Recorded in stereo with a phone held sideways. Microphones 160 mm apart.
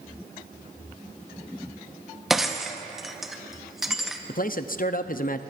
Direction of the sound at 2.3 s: Centre (ahead or behind).